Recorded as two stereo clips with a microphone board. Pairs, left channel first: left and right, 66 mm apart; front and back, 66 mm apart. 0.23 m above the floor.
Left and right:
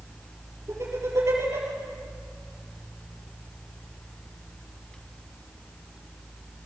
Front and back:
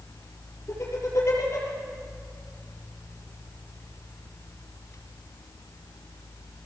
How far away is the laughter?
About 5.5 m.